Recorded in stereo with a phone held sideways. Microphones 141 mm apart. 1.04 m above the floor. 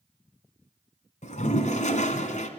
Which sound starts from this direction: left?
A toilet flushing, at 1.2 s.